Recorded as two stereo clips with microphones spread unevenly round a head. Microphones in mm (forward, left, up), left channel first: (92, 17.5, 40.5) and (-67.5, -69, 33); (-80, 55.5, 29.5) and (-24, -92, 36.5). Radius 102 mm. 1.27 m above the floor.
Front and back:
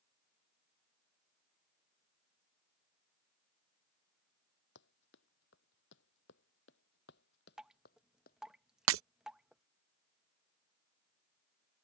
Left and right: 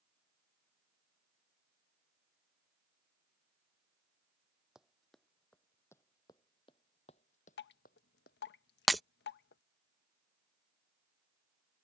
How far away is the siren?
I don't hear a siren.